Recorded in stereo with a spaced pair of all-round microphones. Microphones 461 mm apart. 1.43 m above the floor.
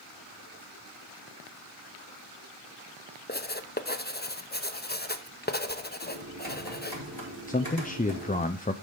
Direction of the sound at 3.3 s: 20° left (ahead or behind).